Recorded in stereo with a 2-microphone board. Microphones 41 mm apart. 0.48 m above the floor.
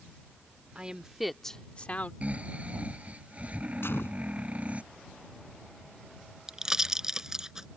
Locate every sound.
0.8 s a woman speaking: 25° right (ahead or behind); by 2.1 s 45° left (ahead or behind)
2.2 s snoring: 35° right (ahead or behind)
3.8 s a gunshot: 75° left (ahead or behind)
6.5 s a pop: 15° right (ahead or behind)